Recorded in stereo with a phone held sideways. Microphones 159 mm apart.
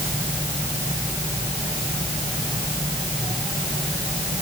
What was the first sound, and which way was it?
Only background noise.